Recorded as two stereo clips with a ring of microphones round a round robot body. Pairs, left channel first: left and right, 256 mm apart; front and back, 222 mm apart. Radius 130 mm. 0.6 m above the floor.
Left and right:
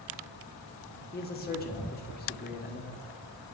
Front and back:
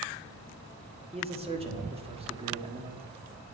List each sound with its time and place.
1.1 s a man speaking: 125° left, 1.6 m